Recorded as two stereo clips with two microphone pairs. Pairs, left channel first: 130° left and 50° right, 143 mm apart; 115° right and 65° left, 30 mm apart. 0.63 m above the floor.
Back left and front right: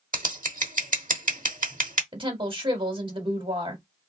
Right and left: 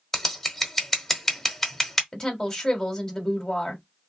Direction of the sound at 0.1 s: 35° right.